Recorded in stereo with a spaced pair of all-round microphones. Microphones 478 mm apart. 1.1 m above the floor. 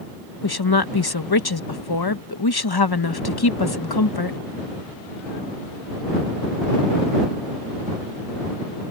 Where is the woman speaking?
50° left (ahead or behind).